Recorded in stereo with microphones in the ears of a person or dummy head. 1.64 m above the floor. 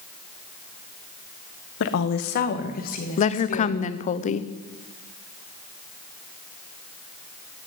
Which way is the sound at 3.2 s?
40° left (ahead or behind).